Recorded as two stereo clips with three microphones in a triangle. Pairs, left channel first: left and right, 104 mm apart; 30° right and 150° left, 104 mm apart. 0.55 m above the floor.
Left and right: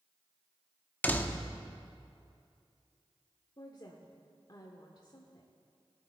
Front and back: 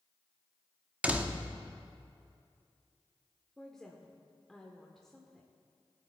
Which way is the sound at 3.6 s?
55° left.